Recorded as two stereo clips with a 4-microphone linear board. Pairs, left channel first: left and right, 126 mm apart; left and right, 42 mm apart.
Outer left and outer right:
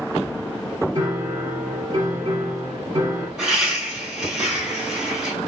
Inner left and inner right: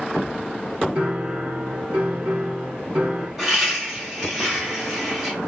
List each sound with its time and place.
0.9 s a piano: 30° right (ahead or behind), 1.1 m
3.4 s laughter: 5° right (ahead or behind), 2 m